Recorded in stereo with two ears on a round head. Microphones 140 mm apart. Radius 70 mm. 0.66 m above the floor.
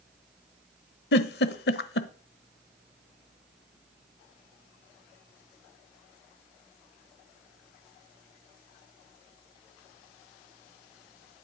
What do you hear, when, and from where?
1.1 s a giggle: 75° left (ahead or behind), 1.0 m